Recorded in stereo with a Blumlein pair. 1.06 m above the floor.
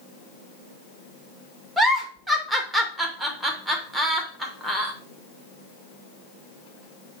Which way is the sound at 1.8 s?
10° right.